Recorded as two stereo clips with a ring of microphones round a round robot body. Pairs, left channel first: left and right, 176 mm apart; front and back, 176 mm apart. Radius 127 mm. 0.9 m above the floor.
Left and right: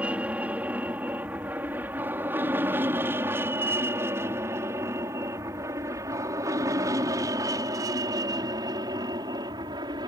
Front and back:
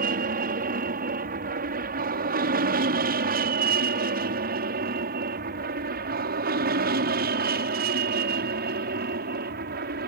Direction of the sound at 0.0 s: 170° right.